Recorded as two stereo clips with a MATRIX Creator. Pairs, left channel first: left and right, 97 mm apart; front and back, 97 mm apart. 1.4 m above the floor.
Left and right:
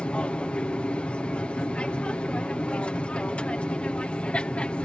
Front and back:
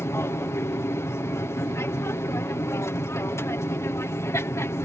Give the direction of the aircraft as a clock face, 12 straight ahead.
11 o'clock.